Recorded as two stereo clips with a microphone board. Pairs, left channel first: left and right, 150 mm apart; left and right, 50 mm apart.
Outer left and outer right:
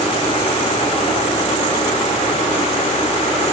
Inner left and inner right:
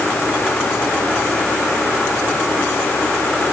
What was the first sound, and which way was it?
Only background noise.